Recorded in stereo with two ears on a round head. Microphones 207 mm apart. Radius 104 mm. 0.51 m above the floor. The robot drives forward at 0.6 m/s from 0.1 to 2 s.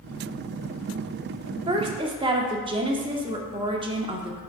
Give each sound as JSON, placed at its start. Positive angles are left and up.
{"t": 1.7, "sound": "a woman speaking", "side_deg": -20, "distance_m": 0.7}